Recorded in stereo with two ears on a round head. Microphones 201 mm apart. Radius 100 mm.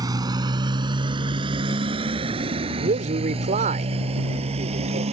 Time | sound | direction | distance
0.0 | a motorcycle | 20° right (ahead or behind) | ?
2.8 | a man speaking | 35° right (ahead or behind) | ?